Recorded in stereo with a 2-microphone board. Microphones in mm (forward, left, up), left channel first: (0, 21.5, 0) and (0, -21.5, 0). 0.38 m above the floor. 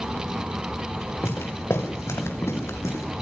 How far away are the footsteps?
About 6 m.